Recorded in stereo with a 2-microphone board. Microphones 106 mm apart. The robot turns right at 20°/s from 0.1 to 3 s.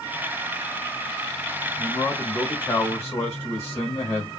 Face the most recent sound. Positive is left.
turn(degrees=30)  # may be behind; listen again after turning